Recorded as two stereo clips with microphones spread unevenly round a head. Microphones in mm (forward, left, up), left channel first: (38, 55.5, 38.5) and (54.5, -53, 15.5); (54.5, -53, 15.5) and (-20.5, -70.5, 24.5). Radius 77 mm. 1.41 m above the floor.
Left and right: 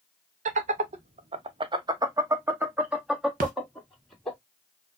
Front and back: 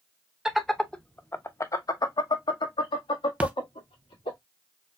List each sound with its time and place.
0.5 s laughter: 80° right, 0.9 m; by 4.4 s 15° left, 1.9 m
3.4 s a splash: 100° right, 0.8 m